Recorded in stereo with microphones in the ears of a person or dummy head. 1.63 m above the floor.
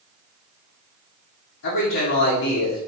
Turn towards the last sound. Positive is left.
turn(degrees=75)  # may be behind; listen again after turning